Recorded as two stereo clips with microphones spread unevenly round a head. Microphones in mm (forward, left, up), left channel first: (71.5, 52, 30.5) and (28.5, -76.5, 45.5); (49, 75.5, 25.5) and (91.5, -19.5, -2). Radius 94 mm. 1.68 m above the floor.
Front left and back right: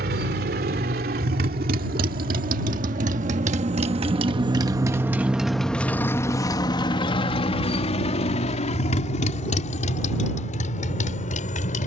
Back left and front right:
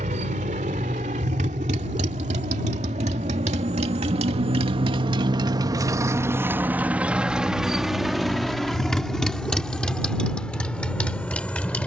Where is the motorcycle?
120° right; by 11.9 s 45° left.